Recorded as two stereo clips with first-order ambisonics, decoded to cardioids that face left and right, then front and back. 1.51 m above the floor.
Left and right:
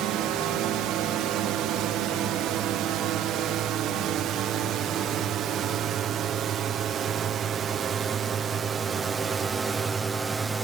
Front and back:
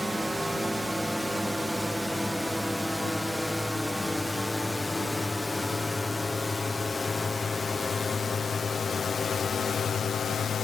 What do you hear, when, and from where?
0.0 s a drone: 95° right; by 10.6 s 25° right